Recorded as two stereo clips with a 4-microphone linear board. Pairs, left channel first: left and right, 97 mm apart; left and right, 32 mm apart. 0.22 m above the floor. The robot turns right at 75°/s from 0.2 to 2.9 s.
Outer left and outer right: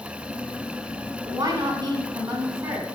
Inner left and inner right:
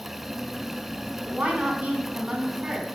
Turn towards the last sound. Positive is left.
turn(degrees=-20)